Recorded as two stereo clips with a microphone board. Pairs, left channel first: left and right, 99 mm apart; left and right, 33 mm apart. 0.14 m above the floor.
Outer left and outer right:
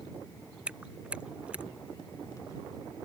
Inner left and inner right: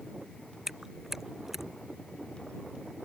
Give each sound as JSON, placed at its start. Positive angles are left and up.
{"t": 0.7, "sound": "chewing", "side_deg": -10}